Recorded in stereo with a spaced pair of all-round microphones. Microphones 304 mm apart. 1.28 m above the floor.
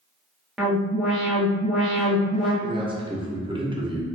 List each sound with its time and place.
0.6 s an alarm: centre (ahead or behind), 1.1 m
2.6 s a man speaking: 15° right (ahead or behind), 0.9 m